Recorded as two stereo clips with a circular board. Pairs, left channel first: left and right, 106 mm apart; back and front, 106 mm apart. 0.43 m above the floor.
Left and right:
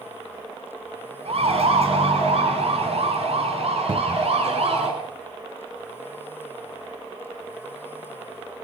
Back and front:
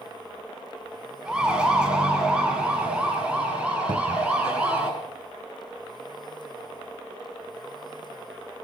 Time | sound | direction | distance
1.2 | a siren | 80° right | 5.5 m
3.9 | a cupboard door | 45° right | 0.5 m